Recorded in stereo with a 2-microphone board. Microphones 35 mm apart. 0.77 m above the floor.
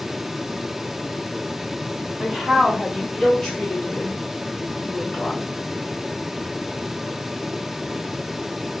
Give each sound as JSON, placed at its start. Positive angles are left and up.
{"t": 2.2, "sound": "a woman speaking", "side_deg": -10, "distance_m": 2.0}